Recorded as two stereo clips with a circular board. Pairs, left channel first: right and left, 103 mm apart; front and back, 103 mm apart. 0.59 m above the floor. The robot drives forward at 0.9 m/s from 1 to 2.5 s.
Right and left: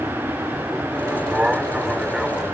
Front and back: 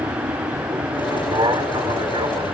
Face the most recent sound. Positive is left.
turn(degrees=175)